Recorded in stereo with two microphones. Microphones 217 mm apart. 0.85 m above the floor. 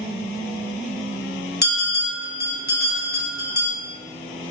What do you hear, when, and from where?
1.6 s a bell: 50° left (ahead or behind), 0.7 m